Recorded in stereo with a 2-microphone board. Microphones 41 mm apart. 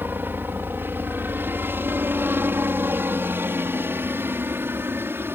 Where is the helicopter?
55° right (ahead or behind); by 5.4 s 65° right (ahead or behind).